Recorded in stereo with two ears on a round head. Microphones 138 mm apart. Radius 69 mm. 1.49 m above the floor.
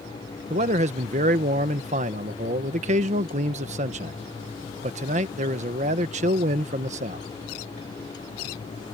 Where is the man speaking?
45° right (ahead or behind).